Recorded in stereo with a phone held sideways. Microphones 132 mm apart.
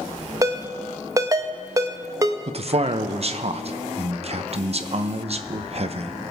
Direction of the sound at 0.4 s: 25° right (ahead or behind).